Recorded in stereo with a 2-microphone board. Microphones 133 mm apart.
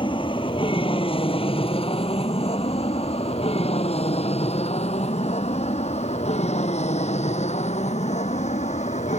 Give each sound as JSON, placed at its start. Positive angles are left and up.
{"t": 0.0, "sound": "an aircraft", "side_deg": 40}